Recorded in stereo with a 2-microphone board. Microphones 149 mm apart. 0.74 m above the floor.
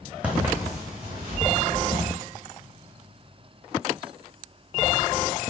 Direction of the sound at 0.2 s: 10° right (ahead or behind).